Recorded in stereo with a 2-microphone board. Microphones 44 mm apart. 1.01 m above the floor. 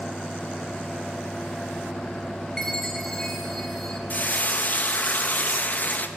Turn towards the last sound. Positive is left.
turn(degrees=40)  # may be behind; listen again after turning